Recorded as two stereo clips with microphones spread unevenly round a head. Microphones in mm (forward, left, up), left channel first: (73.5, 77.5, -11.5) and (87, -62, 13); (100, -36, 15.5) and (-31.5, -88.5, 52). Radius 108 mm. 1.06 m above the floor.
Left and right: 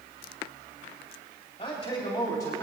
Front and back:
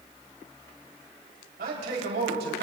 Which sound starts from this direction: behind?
A man speaking, at 1.6 s.